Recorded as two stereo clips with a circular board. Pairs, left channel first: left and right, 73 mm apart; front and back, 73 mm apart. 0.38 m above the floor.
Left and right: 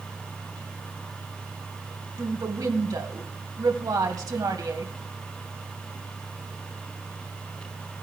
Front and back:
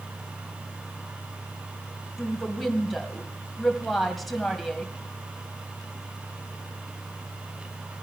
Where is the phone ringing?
No phone ringing in this recording.